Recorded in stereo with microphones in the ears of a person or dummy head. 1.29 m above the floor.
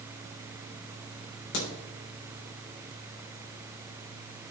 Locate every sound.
1.5 s a crack: 60° left (ahead or behind), 3.5 m